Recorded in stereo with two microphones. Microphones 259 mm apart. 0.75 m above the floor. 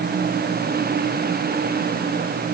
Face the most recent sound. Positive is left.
No sound to turn to.